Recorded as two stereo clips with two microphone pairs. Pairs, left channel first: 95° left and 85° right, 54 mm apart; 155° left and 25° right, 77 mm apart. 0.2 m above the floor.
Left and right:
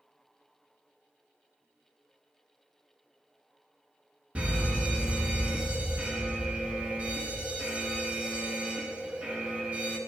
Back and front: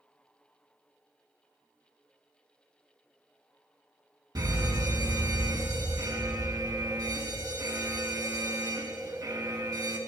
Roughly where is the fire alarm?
Ahead.